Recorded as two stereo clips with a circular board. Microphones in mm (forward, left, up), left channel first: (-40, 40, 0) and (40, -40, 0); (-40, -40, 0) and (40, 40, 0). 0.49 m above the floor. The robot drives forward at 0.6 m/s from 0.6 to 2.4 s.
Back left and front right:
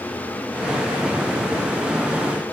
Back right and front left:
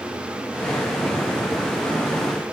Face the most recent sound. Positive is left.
No sound to turn to.